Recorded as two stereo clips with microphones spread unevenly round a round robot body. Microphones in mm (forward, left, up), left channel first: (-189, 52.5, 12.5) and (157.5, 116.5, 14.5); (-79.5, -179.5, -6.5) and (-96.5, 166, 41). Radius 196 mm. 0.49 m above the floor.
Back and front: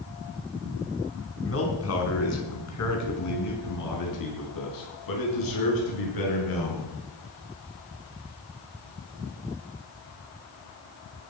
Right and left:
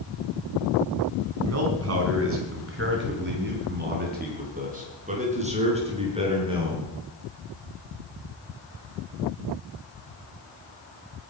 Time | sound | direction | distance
1.4 | a man speaking | 140° left | 5 m